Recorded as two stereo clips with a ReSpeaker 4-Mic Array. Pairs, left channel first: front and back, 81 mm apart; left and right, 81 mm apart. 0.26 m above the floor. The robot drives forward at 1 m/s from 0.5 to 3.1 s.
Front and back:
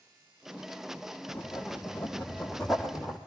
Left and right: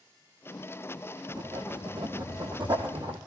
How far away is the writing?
About 4 m.